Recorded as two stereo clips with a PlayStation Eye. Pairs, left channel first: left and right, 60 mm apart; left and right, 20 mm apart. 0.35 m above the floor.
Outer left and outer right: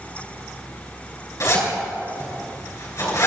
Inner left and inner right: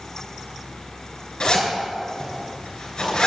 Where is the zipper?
55° left (ahead or behind), 4 m.